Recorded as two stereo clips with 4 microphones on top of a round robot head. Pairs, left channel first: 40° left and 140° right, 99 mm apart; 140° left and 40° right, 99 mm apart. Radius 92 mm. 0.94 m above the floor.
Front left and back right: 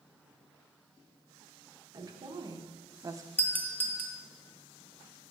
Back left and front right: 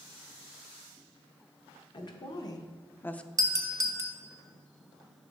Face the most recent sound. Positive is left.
turn(degrees=-20)